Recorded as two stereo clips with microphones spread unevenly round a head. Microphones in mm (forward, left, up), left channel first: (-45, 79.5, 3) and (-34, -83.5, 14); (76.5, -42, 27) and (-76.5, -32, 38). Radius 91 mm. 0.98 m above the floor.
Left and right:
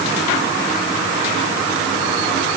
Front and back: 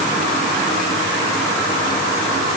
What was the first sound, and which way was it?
Only background noise.